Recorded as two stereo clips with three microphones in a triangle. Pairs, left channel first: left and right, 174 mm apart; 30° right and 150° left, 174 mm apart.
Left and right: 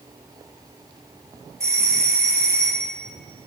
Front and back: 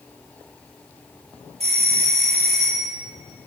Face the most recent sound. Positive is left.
turn(degrees=-160)